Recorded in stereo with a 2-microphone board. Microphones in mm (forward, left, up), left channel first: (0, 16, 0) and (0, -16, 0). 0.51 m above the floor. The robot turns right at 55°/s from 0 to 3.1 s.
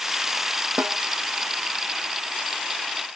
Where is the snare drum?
65° right (ahead or behind); by 1.0 s 55° right (ahead or behind).